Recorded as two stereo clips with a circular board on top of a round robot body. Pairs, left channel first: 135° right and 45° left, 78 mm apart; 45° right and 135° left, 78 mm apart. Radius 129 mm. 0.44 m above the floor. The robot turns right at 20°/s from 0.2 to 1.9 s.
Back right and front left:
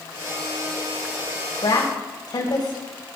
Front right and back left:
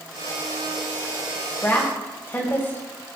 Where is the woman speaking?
115° right, 3.5 m; by 3.1 s 110° right, 3.5 m.